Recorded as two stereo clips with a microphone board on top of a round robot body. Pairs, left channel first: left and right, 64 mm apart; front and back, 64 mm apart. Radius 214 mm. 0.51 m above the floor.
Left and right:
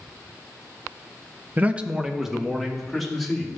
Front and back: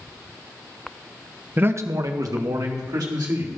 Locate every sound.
1.6 s a man speaking: 135° right, 0.8 m; by 3.5 s straight behind, 3 m